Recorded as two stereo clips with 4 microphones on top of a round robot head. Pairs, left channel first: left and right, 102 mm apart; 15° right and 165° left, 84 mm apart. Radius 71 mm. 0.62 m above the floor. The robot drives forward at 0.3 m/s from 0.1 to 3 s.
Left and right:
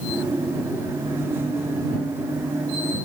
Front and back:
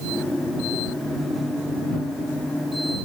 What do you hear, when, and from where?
Only background noise.